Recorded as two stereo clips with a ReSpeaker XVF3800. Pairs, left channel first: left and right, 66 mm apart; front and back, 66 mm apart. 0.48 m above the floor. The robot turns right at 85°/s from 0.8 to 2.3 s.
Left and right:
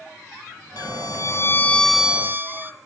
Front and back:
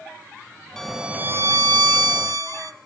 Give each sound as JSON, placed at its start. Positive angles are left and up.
{"t": 0.8, "sound": "a violin", "azimuth_deg": 80, "distance_m": 1.1}